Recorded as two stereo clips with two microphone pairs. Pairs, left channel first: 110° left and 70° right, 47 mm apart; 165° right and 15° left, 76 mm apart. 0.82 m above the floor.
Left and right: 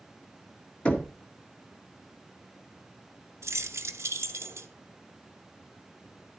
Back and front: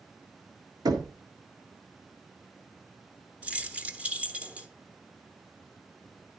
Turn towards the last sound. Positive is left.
turn(degrees=-65)